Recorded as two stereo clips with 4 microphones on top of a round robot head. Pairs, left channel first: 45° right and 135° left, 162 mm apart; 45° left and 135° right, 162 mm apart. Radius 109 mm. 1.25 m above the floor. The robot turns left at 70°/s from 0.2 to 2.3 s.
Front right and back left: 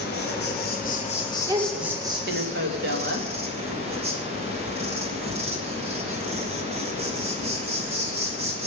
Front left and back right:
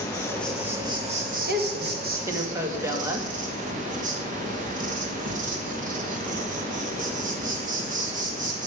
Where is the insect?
25° right, 3.5 m; by 8.7 s 175° right, 3.5 m.